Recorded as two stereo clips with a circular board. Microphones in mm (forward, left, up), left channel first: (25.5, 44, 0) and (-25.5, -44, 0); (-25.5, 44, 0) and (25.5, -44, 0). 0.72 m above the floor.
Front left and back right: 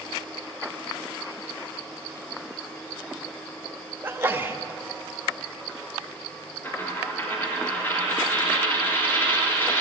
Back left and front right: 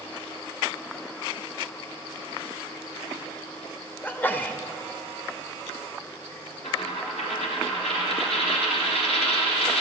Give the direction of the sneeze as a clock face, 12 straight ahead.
6 o'clock.